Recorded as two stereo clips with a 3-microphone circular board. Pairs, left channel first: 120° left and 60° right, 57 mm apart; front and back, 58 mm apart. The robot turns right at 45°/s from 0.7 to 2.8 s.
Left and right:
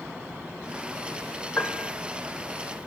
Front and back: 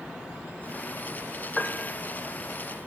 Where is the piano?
80° left, 0.7 m; by 2.0 s 100° left, 0.7 m.